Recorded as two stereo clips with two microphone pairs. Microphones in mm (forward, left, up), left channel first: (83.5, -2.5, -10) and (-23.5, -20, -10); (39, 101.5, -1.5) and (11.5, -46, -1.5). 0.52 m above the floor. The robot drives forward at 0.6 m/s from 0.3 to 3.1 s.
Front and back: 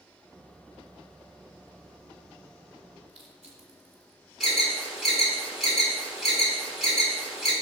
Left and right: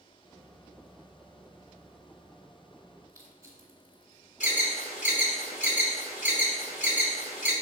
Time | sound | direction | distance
3.1 | crushing | 175° right | 2 m
4.4 | an alarm | 100° left | 3.5 m